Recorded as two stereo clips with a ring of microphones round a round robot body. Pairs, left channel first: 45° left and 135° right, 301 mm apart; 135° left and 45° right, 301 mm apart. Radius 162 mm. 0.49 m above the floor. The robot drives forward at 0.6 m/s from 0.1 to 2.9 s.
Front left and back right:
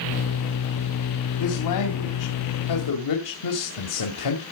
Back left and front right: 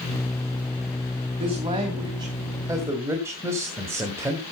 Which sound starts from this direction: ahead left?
A man speaking, at 1.4 s.